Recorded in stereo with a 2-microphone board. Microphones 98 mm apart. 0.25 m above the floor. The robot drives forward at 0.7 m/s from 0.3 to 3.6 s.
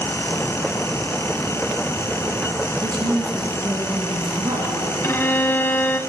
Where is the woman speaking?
55° right (ahead or behind), 3.5 m; by 4.9 s 50° right (ahead or behind), 3.5 m.